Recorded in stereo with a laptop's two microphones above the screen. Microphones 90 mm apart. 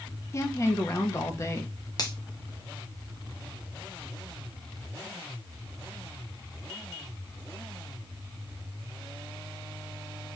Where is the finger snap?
45° left (ahead or behind), 0.7 m.